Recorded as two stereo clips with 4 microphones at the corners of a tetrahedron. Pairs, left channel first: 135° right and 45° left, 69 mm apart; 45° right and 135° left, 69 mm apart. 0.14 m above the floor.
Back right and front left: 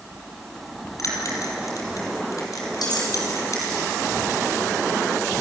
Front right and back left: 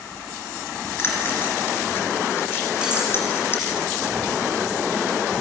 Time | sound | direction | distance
1.0 | a bell | 100° right | 3.5 m
2.8 | cutlery clinking | 150° right | 5.5 m